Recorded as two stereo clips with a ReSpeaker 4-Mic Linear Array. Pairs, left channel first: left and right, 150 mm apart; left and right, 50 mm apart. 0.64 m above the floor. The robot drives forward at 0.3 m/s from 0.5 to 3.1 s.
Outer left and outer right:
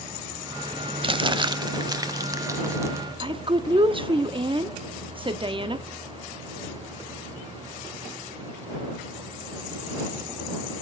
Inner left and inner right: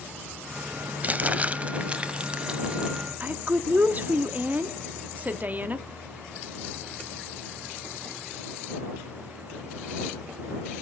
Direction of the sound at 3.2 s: 35° right (ahead or behind).